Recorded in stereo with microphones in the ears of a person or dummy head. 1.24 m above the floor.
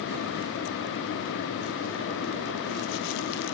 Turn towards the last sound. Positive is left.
No sound to turn to.